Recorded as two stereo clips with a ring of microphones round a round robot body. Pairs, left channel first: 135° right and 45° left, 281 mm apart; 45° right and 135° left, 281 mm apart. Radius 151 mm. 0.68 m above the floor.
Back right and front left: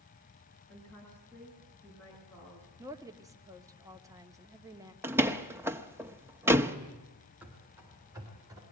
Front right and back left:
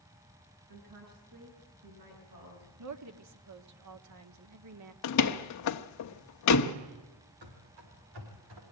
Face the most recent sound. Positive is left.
turn(degrees=120)